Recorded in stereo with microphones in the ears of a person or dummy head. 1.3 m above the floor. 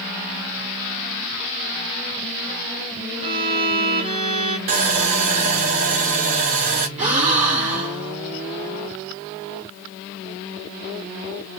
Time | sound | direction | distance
3.2 | a violin | 30° right (ahead or behind) | 1.0 m
4.7 | sawing | 40° right (ahead or behind) | 0.5 m
7.0 | a gasp | 35° right (ahead or behind) | 2 m